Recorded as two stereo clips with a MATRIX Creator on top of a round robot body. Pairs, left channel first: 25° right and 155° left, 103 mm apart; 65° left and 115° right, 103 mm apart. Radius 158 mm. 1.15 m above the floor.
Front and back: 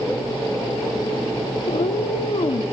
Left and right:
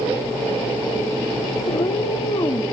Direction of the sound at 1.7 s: 20° left.